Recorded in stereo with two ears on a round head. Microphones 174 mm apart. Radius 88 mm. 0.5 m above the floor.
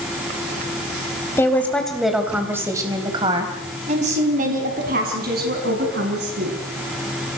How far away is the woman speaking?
About 3.5 m.